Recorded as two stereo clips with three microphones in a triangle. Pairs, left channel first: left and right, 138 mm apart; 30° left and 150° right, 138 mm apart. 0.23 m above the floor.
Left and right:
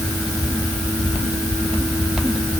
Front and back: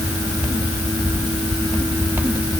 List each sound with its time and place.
Only background noise.